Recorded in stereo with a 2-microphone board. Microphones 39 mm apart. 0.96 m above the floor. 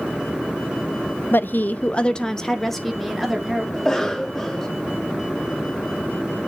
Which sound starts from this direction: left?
A woman speaking, at 1.3 s.